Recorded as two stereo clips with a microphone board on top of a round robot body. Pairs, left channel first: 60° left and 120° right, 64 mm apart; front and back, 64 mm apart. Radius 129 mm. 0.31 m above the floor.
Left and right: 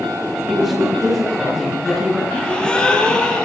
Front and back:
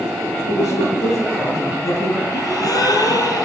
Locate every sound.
0.5 s a woman speaking: 35° right, 8.5 m
2.3 s a gasp: 15° right, 4.5 m